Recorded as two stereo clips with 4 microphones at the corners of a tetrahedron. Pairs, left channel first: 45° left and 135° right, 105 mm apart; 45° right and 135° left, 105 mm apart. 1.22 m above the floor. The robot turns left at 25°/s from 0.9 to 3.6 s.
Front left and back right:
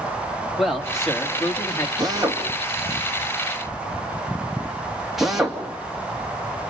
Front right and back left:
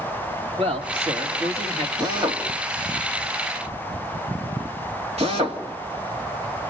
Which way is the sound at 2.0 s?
Straight behind.